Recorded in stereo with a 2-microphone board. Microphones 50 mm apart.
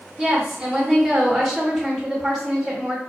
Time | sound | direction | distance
0.2 | a woman speaking | 5° right (ahead or behind) | 1.8 m